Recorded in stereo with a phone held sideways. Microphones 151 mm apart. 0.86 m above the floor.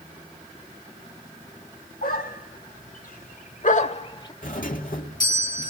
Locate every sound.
2.0 s a dog barking: 80° left, 2.5 m; by 4.3 s 25° left (ahead or behind), 0.9 m
4.4 s a doorbell: 65° left (ahead or behind), 2.5 m